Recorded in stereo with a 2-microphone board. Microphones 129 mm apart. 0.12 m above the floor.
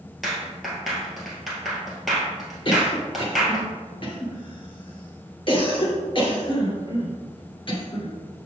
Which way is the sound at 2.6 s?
40° left (ahead or behind).